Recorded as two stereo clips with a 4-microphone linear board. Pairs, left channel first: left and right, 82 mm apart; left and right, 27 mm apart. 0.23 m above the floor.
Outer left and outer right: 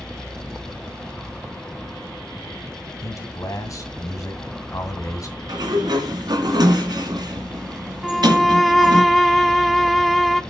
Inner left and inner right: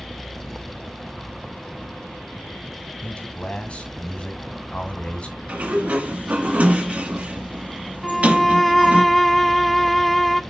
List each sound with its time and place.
3.0 s a man speaking: 40° left (ahead or behind), 2 m
5.5 s a sliding door: 60° right (ahead or behind), 2 m
8.0 s a violin: centre (ahead or behind), 0.5 m